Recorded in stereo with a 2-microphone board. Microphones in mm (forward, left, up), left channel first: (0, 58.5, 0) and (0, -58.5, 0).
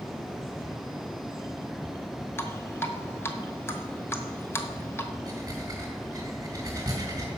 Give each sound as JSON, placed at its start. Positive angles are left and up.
{"t": 2.4, "sound": "dripping", "side_deg": 25, "distance_m": 1.0}
{"t": 5.3, "sound": "breathing", "side_deg": -30, "distance_m": 3.5}